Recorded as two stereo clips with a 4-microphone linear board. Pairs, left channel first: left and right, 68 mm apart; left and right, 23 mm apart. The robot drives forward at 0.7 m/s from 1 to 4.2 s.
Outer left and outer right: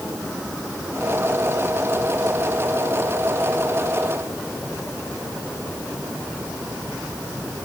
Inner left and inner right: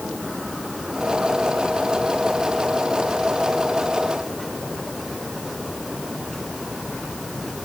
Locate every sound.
Only background noise.